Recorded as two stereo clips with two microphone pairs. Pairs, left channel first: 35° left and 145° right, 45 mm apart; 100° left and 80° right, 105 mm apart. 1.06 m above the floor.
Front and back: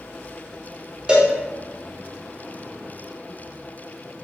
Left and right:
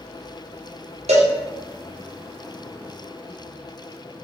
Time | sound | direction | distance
1.1 | a cowbell | 80° right | 0.6 m